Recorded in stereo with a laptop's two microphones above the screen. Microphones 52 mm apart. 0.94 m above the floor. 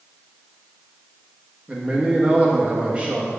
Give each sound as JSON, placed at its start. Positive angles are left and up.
{"t": 1.7, "sound": "a man speaking", "side_deg": -30, "distance_m": 1.6}